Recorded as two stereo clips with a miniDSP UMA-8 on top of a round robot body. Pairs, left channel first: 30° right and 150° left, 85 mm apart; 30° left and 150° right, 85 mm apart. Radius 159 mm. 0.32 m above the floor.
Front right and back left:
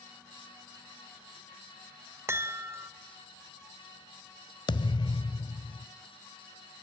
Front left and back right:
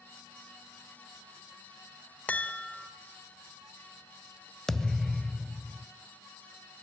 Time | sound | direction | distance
2.3 | a chime | 100° left | 1.8 m
4.7 | a thud | 55° right | 0.7 m